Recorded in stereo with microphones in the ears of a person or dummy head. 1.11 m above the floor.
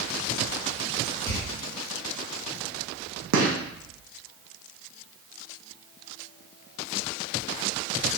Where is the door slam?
15° left (ahead or behind), 1.3 m.